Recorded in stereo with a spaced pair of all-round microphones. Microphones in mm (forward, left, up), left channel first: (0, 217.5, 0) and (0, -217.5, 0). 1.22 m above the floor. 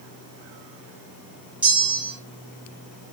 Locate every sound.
1.6 s a bell: 5° right (ahead or behind), 1.1 m